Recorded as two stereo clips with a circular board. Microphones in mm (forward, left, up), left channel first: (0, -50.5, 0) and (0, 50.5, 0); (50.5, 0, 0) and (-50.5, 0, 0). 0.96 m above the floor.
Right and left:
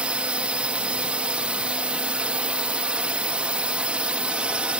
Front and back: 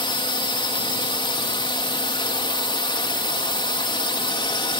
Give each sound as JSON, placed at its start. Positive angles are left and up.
{"t": 0.0, "sound": "a drone", "azimuth_deg": 15}